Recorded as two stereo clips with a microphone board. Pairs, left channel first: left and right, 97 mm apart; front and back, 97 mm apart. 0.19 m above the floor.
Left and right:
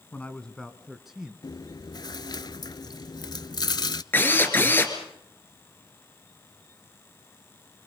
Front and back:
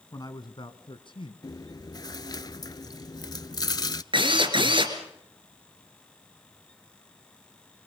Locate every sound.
0.1 s a man speaking: 25° left, 1.5 m; by 1.3 s 10° right, 2.5 m
1.4 s chewing: 45° left, 0.5 m
4.1 s a drill: 155° left, 3 m